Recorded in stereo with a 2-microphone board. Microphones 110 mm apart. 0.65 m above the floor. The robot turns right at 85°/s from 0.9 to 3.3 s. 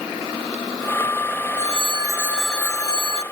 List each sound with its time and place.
1.6 s a phone ringing: 75° right; by 3.2 s 65° left